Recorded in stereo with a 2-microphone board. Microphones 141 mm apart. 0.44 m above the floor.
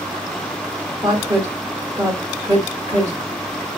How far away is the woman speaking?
About 1.3 m.